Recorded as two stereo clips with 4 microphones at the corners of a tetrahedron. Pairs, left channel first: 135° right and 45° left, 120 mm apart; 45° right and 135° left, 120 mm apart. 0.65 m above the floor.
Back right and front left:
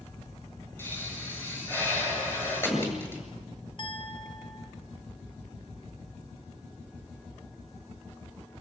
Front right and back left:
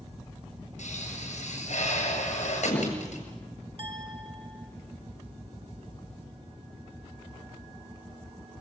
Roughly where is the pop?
Ahead right.